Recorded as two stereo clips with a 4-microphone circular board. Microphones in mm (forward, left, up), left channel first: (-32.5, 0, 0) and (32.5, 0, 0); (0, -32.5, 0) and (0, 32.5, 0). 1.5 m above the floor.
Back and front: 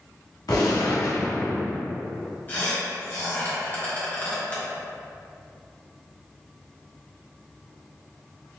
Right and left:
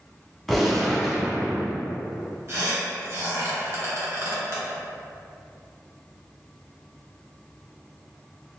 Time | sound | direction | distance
0.5 | a gunshot | 175° right | 0.8 m
2.5 | a squeak | 130° left | 1.0 m